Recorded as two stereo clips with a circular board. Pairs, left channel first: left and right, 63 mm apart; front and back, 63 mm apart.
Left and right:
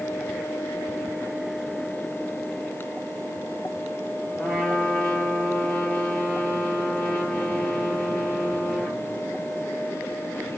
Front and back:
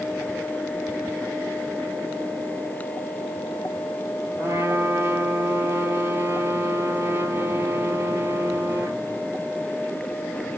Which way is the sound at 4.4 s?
165° left.